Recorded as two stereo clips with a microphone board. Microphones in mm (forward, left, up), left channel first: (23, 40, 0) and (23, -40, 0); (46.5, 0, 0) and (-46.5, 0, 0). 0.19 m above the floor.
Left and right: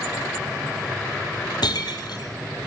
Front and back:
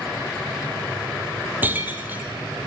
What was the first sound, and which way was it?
Breaking glass, 110° left.